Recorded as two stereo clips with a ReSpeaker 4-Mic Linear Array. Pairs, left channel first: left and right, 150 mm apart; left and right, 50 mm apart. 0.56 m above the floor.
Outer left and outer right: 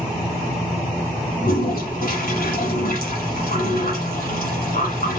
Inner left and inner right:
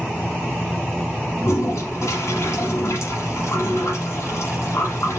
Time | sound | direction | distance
1.4 | a toilet flushing | 75° left (ahead or behind) | 1.3 m